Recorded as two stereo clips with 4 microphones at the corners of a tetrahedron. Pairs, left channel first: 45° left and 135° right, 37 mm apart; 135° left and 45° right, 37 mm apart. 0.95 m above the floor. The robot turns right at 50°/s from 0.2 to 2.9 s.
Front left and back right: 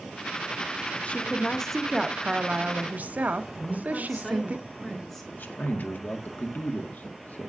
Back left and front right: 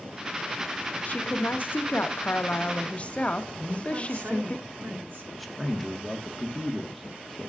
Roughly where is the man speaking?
Ahead left.